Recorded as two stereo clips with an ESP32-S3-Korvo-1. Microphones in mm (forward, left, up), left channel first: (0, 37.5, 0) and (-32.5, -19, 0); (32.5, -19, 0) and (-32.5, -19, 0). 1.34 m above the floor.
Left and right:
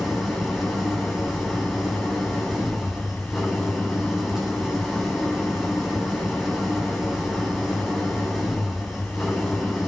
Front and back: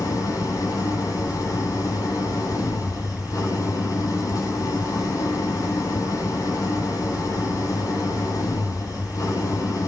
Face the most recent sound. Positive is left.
turn(degrees=-35)